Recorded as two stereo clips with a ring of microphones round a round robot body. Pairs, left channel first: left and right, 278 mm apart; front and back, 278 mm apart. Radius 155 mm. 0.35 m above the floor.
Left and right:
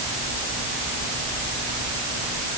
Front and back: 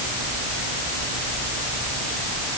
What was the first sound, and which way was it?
Only background noise.